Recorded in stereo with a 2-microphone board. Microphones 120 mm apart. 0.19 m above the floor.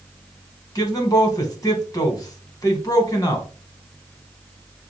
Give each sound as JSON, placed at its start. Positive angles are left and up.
{"t": 0.8, "sound": "a man speaking", "side_deg": 30, "distance_m": 1.2}